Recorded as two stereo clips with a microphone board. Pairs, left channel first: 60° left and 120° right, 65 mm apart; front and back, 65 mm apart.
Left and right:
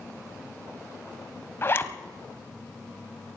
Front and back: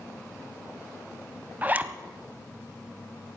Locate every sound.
1.6 s a zipper: 115° left, 0.9 m